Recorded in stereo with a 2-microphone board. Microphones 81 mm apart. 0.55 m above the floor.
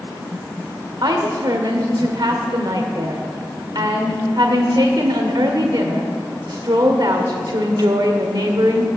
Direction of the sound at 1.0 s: 60° right (ahead or behind).